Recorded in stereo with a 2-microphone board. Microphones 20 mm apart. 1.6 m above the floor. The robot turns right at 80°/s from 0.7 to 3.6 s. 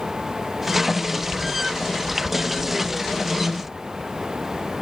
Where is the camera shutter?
I don't hear a camera shutter.